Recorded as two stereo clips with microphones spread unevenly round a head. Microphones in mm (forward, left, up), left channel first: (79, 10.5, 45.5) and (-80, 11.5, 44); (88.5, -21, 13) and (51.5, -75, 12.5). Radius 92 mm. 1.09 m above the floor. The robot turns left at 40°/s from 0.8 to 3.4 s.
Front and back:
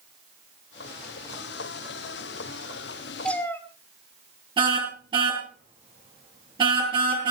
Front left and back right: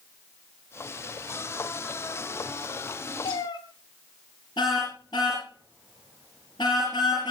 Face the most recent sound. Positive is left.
turn(degrees=120)